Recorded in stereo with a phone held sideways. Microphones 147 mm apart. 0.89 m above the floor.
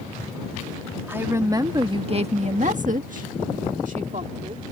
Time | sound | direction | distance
1.1 | a woman speaking | 15° right (ahead or behind) | ?